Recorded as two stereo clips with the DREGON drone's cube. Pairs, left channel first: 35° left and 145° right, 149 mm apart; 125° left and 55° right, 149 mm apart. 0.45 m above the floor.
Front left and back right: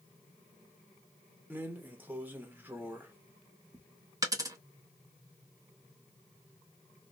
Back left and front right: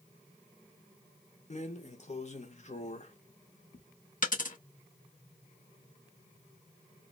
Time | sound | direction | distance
1.5 | a drawer | 140° left | 0.7 m
4.2 | a dropped coin | 150° left | 0.7 m